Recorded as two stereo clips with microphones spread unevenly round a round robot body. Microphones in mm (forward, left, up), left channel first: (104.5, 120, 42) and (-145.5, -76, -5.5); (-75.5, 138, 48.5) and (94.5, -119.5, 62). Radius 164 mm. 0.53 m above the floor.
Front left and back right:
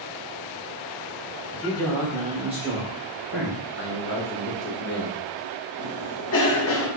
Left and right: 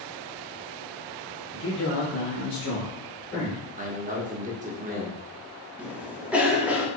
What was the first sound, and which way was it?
A man speaking, 115° left.